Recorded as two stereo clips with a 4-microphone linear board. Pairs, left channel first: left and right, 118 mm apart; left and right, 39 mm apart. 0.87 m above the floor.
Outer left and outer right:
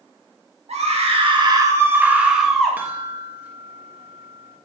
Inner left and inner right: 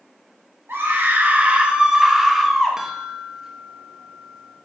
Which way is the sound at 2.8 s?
15° right (ahead or behind).